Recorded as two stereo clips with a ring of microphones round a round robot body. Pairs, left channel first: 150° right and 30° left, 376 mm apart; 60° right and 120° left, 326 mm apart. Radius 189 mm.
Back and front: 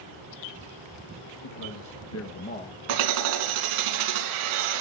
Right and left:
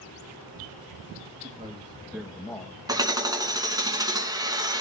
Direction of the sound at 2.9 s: 40° left.